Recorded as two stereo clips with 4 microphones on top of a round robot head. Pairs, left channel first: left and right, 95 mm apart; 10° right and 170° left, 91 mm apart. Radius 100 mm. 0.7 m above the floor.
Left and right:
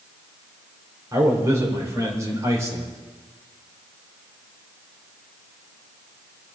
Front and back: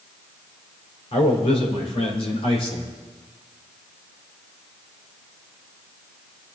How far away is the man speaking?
About 3.5 m.